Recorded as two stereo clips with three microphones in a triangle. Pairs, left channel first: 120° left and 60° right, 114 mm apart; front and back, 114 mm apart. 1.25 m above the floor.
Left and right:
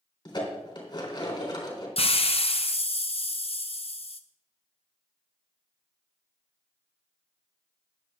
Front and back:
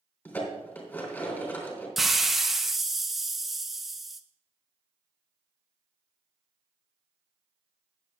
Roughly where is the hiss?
Left.